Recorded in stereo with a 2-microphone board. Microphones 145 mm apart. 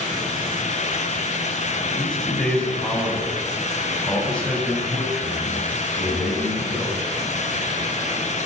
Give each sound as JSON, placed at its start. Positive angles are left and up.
{"t": 1.9, "sound": "a man speaking", "side_deg": 5, "distance_m": 9.0}